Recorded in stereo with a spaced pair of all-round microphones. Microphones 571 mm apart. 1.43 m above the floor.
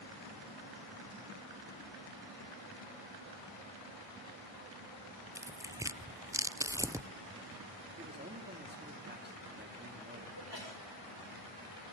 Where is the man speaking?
15° right (ahead or behind), 3 m.